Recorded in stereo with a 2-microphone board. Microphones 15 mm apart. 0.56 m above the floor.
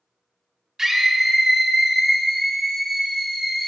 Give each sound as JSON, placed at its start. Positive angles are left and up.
{"t": 0.8, "sound": "a scream", "side_deg": -35, "distance_m": 0.9}